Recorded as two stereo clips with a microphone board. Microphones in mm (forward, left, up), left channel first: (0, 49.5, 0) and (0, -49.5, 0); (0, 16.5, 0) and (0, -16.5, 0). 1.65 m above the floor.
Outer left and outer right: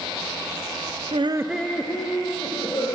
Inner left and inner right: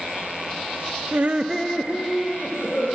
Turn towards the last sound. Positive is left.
turn(degrees=40)  # may be behind; listen again after turning